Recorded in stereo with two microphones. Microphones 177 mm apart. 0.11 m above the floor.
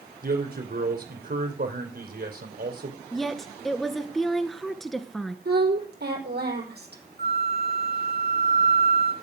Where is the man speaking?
60° right (ahead or behind), 4 m.